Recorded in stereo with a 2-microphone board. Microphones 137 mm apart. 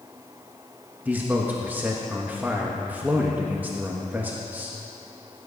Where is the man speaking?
15° right (ahead or behind), 1.3 m.